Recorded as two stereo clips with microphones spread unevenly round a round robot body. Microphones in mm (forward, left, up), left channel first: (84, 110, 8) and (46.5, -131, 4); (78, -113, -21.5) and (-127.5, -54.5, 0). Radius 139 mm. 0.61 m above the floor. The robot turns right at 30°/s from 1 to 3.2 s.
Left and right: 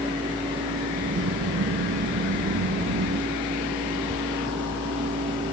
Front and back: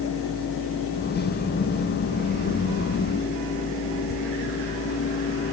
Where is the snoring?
I don't hear snoring.